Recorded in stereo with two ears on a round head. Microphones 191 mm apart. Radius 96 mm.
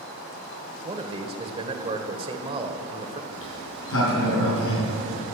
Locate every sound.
0.8 s a man speaking: 25° right (ahead or behind), 1.5 m
3.3 s a sliding door: 70° left (ahead or behind), 5.5 m